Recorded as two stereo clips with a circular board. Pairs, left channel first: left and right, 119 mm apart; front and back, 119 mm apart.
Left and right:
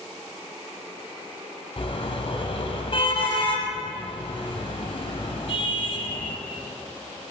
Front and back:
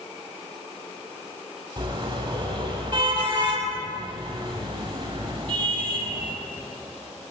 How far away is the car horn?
About 5.5 m.